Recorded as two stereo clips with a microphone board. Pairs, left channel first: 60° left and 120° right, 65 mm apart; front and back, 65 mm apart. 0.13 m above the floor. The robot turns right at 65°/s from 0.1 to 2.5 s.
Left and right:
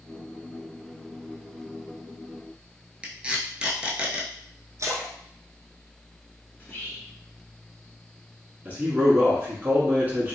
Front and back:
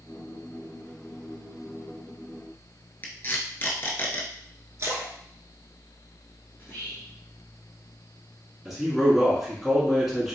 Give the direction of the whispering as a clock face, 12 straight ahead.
11 o'clock.